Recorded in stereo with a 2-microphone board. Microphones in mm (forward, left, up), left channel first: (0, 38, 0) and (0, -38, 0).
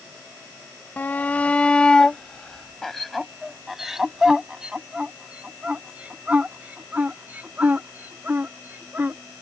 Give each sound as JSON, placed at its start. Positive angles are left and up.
{"t": 1.0, "sound": "a shout", "side_deg": 25}